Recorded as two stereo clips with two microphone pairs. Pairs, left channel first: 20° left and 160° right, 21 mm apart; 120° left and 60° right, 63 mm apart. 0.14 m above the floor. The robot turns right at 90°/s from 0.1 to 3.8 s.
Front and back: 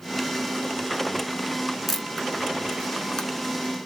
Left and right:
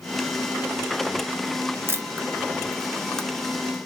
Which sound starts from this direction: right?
A camera shutter, at 1.9 s.